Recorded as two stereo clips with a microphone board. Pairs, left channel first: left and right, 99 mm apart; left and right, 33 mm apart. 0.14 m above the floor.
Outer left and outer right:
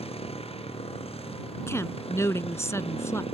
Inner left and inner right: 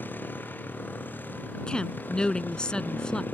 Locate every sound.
0.0 s a motorcycle: 80° left
1.7 s a woman speaking: 30° left (ahead or behind)